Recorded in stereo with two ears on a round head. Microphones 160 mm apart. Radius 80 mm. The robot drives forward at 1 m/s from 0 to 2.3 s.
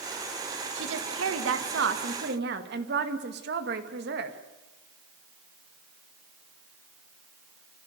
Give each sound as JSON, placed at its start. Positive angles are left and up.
{"t": 0.8, "sound": "a woman speaking", "side_deg": -70, "distance_m": 2.0}